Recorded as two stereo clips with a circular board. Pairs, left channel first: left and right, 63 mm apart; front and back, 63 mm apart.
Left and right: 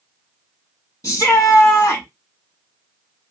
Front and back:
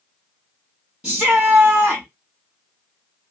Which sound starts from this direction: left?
A shout, at 1.0 s.